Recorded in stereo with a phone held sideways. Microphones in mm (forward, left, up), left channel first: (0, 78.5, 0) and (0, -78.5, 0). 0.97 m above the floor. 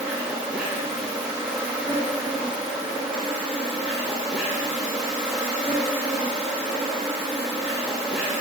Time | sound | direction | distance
0.0 | an insect | 5° right (ahead or behind) | 3 m